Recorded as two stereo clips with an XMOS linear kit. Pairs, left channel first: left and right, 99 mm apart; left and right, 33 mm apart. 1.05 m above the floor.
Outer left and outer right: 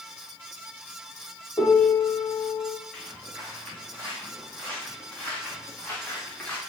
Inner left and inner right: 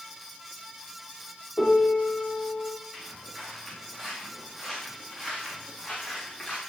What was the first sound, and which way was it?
A piano, 35° left (ahead or behind).